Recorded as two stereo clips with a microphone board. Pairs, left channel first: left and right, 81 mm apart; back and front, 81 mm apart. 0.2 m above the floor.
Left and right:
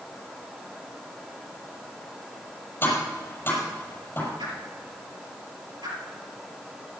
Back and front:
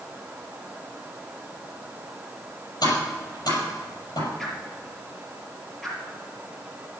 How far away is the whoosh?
About 5 m.